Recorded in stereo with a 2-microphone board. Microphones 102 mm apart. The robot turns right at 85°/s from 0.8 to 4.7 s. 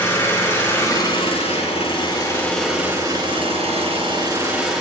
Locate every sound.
0.0 s an engine running: 25° left, 4 m; by 4.8 s straight ahead, 4 m